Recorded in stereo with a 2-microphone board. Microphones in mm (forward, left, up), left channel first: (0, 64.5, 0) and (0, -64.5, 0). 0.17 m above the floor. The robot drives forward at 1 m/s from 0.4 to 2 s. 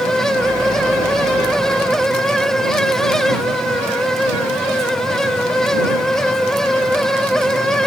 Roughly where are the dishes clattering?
No dishes clattering in this recording.